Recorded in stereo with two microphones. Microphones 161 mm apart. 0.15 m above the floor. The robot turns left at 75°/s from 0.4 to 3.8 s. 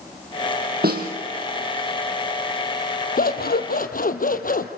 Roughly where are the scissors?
Behind left.